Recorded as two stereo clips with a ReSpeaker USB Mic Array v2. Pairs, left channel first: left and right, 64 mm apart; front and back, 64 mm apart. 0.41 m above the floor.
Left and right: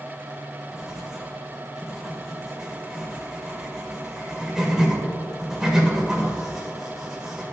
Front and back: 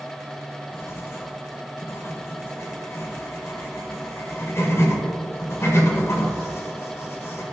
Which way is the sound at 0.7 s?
10° right.